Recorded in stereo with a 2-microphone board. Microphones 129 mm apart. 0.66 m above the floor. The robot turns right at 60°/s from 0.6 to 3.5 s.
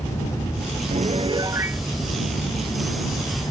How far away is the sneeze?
No sneeze in this recording.